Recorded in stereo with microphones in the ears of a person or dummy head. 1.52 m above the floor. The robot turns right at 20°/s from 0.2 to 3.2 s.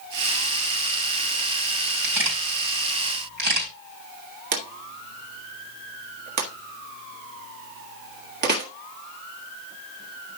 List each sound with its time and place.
2.0 s a camera shutter: 75° right (ahead or behind), 4.5 m; by 3.7 s 55° right (ahead or behind), 4.5 m
4.5 s a drawer: 45° right (ahead or behind), 1.6 m